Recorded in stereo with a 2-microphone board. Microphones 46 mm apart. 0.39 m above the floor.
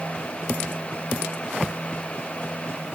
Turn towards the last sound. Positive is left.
No sound to turn to.